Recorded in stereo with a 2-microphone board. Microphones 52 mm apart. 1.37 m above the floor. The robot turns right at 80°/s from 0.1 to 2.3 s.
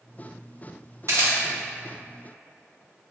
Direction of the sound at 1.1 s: 60° right (ahead or behind).